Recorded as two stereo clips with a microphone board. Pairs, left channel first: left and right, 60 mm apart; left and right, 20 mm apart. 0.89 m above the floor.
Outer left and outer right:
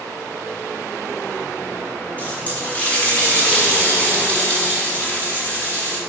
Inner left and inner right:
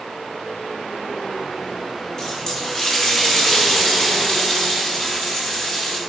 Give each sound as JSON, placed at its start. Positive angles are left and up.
{"t": 2.2, "sound": "a running tap", "side_deg": 25, "distance_m": 1.6}